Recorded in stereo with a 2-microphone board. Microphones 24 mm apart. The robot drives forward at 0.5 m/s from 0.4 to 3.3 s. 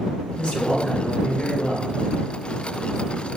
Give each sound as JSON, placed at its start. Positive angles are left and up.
{"t": 0.4, "sound": "a man speaking", "side_deg": 55, "distance_m": 2.0}